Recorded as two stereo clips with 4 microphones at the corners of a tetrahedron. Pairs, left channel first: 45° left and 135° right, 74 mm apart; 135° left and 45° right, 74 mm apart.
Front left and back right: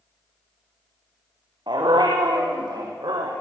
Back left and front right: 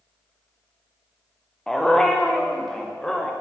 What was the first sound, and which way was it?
A dog barking, 140° right.